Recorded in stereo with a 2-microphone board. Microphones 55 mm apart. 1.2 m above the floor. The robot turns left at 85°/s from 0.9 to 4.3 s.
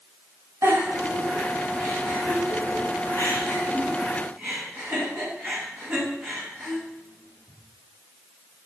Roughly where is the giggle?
Right.